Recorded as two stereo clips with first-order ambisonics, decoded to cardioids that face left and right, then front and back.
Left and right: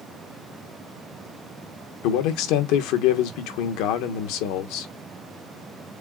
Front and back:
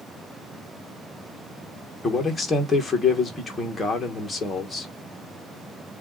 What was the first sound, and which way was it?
A man speaking, 85° left.